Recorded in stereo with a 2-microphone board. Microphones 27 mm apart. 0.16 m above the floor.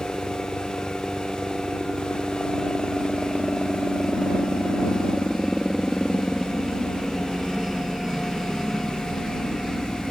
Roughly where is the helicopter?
Centre.